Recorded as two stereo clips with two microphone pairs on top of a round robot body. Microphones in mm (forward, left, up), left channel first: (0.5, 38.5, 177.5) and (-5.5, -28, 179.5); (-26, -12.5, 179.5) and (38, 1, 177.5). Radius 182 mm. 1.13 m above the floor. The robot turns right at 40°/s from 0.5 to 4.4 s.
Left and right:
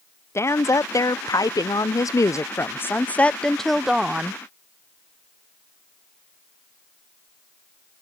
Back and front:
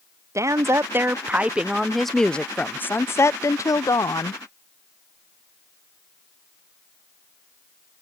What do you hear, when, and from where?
0.3 s a woman speaking: 45° left; by 4.4 s 160° right